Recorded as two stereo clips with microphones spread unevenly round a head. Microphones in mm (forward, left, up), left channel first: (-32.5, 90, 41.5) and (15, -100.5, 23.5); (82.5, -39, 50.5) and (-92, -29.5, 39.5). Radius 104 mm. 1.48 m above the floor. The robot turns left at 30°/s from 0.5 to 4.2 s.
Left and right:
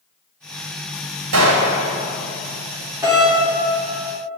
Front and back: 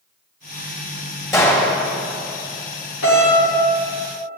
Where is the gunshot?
75° right, 2.5 m; by 1.8 s 90° right, 2.5 m.